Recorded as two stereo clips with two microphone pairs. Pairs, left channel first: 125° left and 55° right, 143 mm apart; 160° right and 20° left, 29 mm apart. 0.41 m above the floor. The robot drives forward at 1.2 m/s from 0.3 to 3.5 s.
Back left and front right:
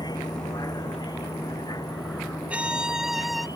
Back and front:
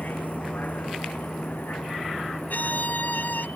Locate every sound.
0.0 s a vehicle: 170° right
2.5 s a violin: 135° right; by 3.5 s 145° right